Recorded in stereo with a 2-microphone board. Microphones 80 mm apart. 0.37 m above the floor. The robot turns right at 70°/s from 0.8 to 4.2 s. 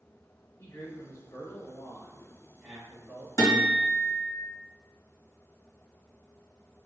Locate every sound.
0.6 s a man speaking: 20° left (ahead or behind), 1.2 m; by 3.3 s 15° right (ahead or behind), 1.2 m
3.4 s a guitar: 45° left, 1.4 m; by 4.3 s 100° left, 1.4 m